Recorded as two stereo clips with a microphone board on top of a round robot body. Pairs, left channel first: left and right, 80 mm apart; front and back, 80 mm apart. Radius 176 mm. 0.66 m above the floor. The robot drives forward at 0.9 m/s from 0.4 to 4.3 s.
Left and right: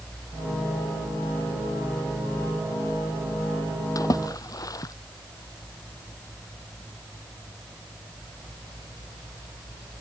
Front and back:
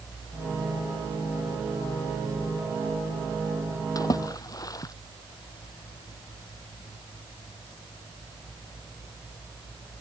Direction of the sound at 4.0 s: 45° left.